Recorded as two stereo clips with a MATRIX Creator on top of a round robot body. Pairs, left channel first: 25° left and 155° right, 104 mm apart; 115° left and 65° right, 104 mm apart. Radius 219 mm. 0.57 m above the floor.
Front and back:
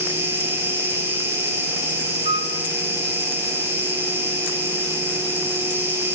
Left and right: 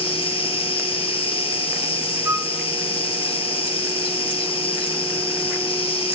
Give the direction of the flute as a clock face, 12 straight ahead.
4 o'clock.